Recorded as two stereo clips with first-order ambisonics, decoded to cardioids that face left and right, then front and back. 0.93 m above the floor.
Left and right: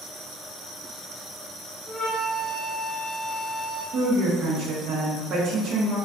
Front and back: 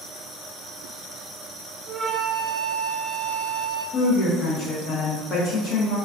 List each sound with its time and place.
1.9 s a flute: 155° left, 0.7 m
3.9 s a woman speaking: 50° right, 0.7 m